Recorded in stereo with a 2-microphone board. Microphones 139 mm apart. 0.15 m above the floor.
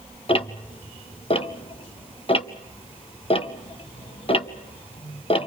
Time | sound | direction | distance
0.3 | ticking | 40° left (ahead or behind) | 0.7 m